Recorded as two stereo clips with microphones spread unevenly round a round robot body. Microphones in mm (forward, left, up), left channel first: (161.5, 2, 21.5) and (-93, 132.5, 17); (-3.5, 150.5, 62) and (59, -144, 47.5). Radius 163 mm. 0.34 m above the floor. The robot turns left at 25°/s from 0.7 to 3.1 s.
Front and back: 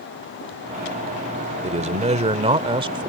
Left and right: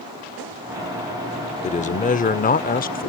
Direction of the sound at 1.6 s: 140° left.